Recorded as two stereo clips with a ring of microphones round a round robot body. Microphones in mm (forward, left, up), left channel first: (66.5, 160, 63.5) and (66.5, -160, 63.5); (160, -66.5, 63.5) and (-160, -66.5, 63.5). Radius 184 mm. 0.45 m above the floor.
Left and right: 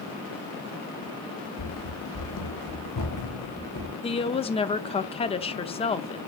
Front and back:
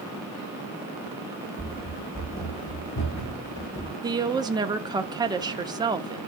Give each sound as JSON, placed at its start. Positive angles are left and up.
{"t": 1.6, "sound": "running footsteps", "azimuth_deg": 80, "distance_m": 1.2}
{"t": 4.0, "sound": "a woman speaking", "azimuth_deg": 125, "distance_m": 0.7}